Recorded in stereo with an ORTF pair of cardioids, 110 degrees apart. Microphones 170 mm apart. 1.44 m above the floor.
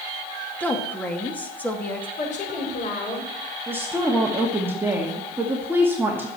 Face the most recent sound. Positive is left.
turn(degrees=-15)